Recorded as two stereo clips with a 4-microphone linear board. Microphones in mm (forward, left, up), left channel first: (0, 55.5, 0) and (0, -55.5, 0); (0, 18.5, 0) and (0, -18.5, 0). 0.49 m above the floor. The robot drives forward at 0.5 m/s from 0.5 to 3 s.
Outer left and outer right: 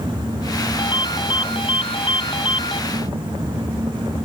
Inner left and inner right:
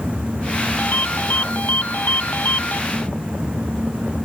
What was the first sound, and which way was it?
A ringtone, 50° left (ahead or behind).